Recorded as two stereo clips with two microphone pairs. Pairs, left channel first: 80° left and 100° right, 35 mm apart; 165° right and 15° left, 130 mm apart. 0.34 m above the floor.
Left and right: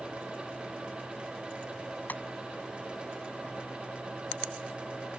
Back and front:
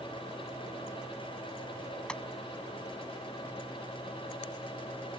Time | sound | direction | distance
2.1 | tapping | 110° left | ?